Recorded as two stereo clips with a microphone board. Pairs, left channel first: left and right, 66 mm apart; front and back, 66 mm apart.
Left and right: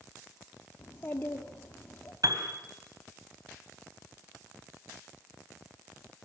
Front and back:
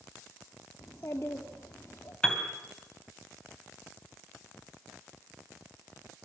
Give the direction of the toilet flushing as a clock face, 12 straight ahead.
No toilet flushing in this recording.